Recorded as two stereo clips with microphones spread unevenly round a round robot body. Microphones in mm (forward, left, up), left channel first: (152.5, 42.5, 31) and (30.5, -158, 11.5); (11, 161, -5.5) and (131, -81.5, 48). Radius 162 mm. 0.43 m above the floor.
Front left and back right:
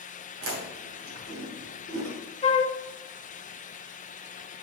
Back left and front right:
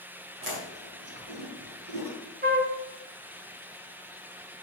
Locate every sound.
0.4 s chewing: 120° right, 2.5 m
2.4 s a flute: 5° right, 0.8 m